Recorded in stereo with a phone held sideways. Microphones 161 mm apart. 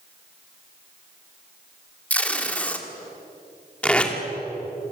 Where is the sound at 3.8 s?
10° left (ahead or behind), 2.5 m.